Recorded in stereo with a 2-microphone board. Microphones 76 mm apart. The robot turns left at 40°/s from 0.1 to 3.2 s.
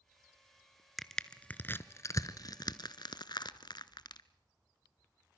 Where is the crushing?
Centre (ahead or behind), 0.8 m; by 4.2 s 75° left (ahead or behind), 0.8 m.